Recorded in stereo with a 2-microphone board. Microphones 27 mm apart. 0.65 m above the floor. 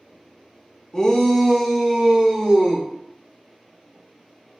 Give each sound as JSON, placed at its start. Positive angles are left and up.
{"t": 0.9, "sound": "a shout", "side_deg": 25, "distance_m": 0.6}